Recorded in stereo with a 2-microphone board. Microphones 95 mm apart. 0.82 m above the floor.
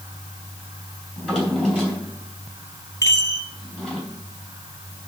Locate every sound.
1.2 s a drawer: 15° left (ahead or behind), 4 m
3.0 s a chime: 35° left (ahead or behind), 0.8 m